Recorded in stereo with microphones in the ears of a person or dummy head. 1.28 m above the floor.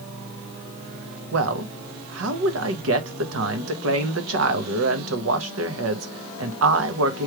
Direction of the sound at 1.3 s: 80° right.